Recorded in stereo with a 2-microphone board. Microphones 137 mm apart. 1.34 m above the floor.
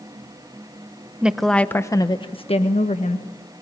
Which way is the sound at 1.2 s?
10° right (ahead or behind).